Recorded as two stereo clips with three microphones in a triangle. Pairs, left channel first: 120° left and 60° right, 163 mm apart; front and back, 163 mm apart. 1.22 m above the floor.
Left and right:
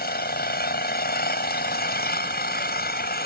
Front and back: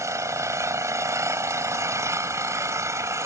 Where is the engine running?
110° left.